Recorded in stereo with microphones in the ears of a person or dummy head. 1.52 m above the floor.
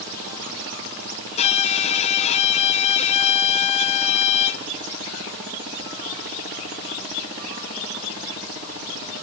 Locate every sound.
1.4 s a violin: 35° left (ahead or behind), 1.3 m